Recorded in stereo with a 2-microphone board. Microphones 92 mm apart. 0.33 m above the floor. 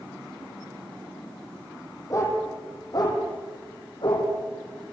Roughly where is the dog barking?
Left.